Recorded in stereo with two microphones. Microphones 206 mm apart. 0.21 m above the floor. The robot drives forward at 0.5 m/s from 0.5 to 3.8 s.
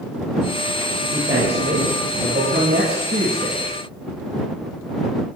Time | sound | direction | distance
1.1 | a man speaking | 55° right (ahead or behind) | 5 m